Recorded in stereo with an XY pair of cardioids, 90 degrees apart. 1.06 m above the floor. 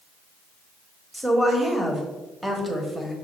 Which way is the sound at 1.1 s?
10° right.